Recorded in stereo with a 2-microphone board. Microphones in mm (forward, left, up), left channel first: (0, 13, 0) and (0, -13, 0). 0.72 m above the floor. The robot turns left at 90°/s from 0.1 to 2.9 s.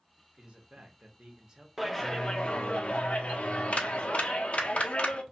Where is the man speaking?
40° right, 0.9 m; by 1.7 s 160° right, 0.9 m.